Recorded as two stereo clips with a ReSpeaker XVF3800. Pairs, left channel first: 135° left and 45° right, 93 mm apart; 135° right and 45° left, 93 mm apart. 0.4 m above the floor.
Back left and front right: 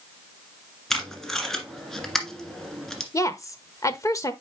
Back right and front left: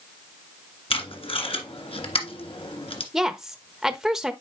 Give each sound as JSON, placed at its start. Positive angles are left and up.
{"t": 0.9, "sound": "tape being pulled", "azimuth_deg": -140, "distance_m": 1.6}
{"t": 3.1, "sound": "a woman speaking", "azimuth_deg": 130, "distance_m": 0.9}